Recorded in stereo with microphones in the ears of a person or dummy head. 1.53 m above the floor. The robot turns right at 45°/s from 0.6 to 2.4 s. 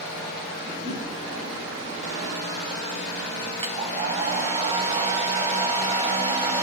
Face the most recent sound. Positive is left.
turn(degrees=-30)  # may be behind; listen again after turning